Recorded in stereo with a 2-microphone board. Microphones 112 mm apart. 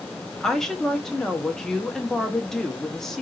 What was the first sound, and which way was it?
A woman speaking, 5° left (ahead or behind).